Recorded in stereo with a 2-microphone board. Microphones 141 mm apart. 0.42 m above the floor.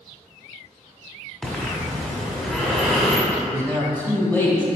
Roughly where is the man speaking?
Centre.